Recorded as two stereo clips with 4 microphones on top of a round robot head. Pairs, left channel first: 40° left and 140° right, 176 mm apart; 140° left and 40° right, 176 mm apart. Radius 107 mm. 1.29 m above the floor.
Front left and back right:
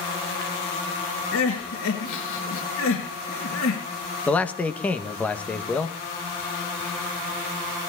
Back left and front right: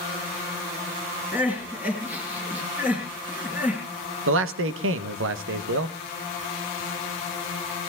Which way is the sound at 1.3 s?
40° left.